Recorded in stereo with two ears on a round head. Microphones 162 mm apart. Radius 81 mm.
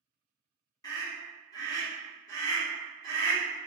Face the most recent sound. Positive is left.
turn(degrees=20)  # may be behind; listen again after turning